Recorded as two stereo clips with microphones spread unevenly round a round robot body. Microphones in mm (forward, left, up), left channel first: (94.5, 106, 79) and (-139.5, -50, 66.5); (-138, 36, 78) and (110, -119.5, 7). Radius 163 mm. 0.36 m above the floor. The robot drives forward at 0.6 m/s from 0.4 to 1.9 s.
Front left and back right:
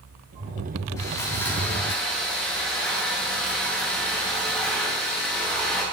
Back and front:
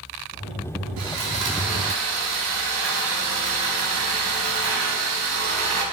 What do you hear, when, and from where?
1.0 s sawing: 45° right, 3 m; by 5.8 s 55° right, 2.5 m